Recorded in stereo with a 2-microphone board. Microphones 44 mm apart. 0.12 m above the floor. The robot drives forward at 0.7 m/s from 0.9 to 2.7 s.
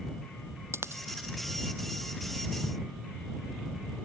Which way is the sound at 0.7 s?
75° right (ahead or behind).